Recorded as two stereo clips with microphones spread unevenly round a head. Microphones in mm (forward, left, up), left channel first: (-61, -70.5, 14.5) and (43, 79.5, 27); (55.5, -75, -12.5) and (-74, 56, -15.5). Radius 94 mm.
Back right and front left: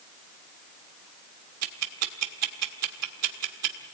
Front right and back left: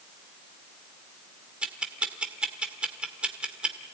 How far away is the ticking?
About 1.9 m.